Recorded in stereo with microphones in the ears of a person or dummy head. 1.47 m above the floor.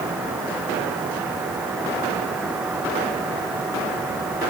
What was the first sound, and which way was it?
Only background noise.